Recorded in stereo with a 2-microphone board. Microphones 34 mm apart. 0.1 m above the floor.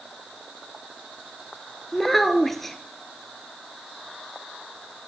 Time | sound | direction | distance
1.9 | a child speaking | 5° left (ahead or behind) | 1.1 m